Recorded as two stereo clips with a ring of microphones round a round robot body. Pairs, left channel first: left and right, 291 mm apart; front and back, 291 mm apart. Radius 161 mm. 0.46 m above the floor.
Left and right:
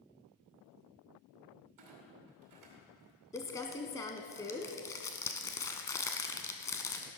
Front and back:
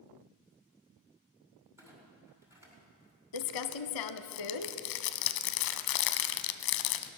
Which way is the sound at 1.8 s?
100° right.